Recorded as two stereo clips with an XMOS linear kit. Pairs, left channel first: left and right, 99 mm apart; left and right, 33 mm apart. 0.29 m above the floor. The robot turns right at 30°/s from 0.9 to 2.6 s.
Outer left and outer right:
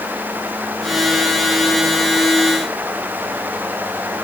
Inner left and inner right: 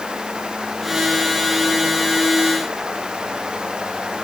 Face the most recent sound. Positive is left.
No sound to turn to.